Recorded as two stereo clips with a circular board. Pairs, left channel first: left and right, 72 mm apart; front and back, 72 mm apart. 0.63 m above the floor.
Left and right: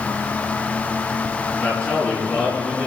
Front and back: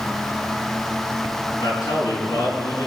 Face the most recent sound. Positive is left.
turn(degrees=25)